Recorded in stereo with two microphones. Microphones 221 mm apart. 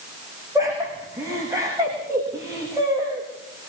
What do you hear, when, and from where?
0.6 s laughter: 15° right (ahead or behind), 9.5 m